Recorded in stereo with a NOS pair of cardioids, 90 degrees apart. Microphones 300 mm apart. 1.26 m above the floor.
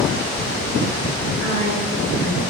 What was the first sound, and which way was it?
A woman speaking, 55° left.